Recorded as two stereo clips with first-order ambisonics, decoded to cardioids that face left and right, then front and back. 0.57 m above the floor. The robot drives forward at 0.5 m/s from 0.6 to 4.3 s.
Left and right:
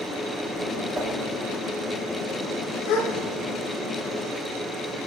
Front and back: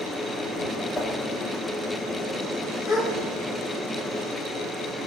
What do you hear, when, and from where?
0.9 s a whoosh: 50° right, 1.2 m; by 1.1 s 55° right, 1.2 m
2.9 s a gasp: 65° left, 1.5 m; by 3.1 s 70° left, 1.4 m